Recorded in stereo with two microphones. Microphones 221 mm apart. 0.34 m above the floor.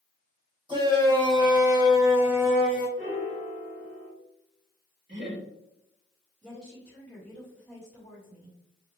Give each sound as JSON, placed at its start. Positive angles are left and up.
{"t": 0.7, "sound": "a shout", "side_deg": -20, "distance_m": 1.9}
{"t": 3.0, "sound": "a piano", "side_deg": -70, "distance_m": 2.5}
{"t": 5.1, "sound": "laughter", "side_deg": -55, "distance_m": 2.0}
{"t": 6.4, "sound": "a woman speaking", "side_deg": 5, "distance_m": 1.6}